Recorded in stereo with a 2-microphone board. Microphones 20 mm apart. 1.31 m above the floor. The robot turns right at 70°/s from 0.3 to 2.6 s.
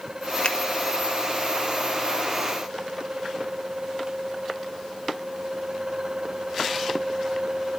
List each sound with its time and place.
0.4 s a finger snap: 65° left (ahead or behind), 1.5 m; by 0.6 s 70° left (ahead or behind), 1.5 m